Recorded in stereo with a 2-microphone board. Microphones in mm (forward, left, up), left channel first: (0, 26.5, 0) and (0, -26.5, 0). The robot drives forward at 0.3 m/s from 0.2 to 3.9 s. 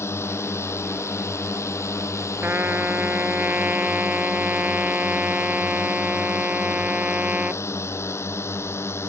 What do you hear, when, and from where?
0.0 s a drone: 60° left (ahead or behind); by 9.1 s 55° left (ahead or behind)
2.4 s a trumpet: 45° right (ahead or behind); by 7.6 s 30° right (ahead or behind)